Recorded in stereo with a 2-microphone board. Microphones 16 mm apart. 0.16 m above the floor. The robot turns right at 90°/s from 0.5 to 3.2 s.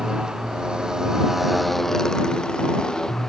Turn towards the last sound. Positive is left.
turn(degrees=140)